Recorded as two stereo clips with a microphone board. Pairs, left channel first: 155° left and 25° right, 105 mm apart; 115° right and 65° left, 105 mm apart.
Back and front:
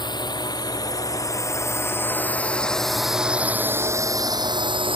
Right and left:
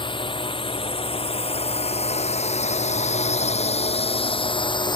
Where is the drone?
155° right; by 5.0 s 60° right.